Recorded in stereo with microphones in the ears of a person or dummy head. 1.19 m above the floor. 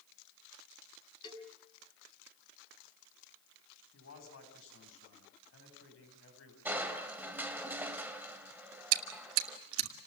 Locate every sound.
1.2 s a cowbell: 25° left (ahead or behind), 6 m
3.9 s a man speaking: 85° left, 8.5 m
6.7 s crushing: 10° right (ahead or behind), 2 m
8.9 s chewing: 90° right, 1.8 m